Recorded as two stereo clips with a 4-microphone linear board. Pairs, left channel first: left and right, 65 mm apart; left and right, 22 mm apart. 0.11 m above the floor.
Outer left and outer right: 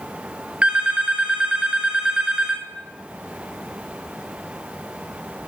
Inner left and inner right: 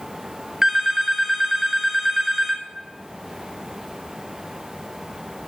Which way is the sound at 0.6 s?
20° right (ahead or behind).